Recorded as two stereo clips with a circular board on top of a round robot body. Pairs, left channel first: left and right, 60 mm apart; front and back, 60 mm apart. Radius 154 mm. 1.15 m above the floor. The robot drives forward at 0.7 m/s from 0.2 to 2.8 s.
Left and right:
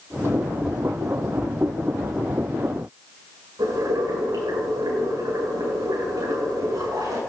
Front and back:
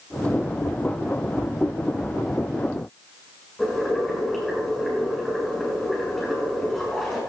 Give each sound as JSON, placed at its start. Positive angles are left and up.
{"t": 3.6, "sound": "boiling", "azimuth_deg": -85, "distance_m": 6.0}